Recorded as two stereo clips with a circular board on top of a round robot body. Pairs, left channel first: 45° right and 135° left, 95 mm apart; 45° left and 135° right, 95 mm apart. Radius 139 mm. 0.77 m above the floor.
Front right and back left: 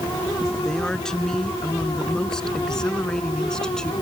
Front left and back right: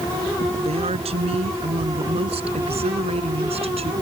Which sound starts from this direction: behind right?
A woman speaking, at 0.6 s.